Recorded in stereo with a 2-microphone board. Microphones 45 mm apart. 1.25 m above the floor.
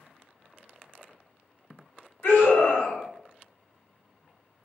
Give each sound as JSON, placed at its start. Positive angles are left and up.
{"t": 2.2, "sound": "a scream", "side_deg": 65, "distance_m": 1.6}